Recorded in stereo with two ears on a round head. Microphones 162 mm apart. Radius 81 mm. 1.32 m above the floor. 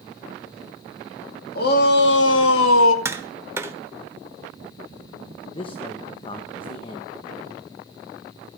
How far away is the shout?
About 2.5 m.